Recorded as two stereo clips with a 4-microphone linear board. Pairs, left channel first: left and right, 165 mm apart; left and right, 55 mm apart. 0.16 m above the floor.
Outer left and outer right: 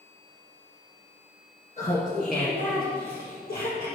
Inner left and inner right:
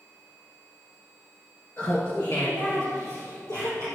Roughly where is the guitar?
I don't hear a guitar.